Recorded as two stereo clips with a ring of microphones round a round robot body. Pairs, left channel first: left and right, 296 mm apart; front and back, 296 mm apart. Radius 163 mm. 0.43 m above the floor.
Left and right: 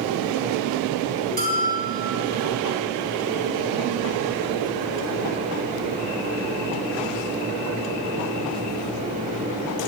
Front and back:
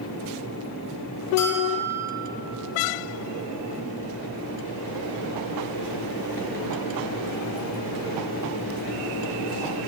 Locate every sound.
1.4 s a bell: 30° right, 1.5 m